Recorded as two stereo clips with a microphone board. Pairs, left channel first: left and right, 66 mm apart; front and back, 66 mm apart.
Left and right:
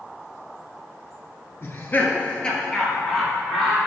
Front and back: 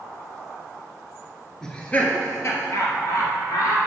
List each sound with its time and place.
1.6 s laughter: 75° left, 1.4 m; by 3.8 s straight ahead, 3 m